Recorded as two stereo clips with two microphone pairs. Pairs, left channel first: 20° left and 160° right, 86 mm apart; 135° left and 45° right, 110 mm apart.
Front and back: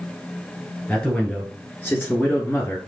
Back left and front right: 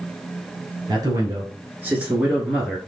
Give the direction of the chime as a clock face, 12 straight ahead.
No chime in this recording.